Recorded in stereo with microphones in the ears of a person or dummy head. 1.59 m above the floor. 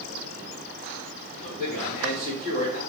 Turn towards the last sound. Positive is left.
turn(degrees=-5)  # may be behind; listen again after turning